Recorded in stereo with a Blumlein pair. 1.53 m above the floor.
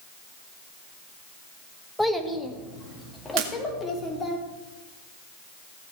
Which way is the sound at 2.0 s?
Straight ahead.